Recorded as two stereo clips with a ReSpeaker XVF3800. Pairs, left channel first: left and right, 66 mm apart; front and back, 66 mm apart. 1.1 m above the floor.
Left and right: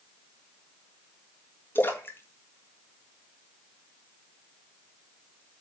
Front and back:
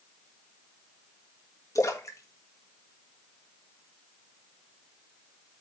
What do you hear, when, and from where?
1.8 s a splash: 35° left, 1.6 m